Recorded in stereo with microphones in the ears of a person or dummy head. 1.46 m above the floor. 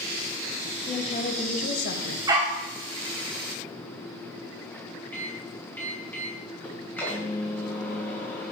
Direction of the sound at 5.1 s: 10° left (ahead or behind).